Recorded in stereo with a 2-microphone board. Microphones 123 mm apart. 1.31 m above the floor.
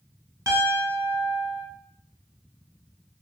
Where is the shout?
No shout in this recording.